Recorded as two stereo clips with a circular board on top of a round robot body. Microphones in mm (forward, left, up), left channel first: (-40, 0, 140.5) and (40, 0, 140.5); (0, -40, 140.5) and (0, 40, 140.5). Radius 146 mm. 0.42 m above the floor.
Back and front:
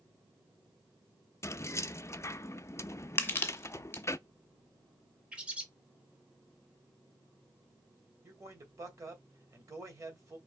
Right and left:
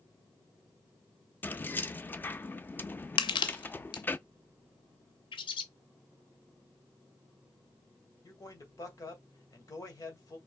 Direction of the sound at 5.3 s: 75° right.